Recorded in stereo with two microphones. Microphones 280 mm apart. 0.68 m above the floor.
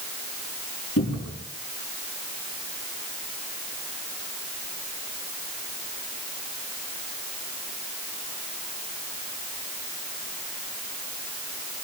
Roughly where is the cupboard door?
Left.